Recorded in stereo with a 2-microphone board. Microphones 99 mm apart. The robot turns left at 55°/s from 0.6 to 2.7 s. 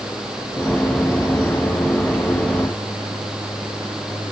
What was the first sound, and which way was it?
Only background noise.